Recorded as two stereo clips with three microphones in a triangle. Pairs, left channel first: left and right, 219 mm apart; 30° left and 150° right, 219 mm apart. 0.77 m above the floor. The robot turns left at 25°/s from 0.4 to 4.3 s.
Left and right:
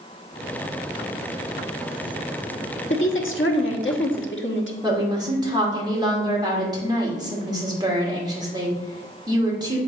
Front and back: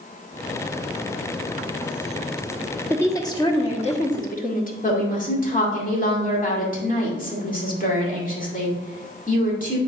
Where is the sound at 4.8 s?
20° right, 2.5 m.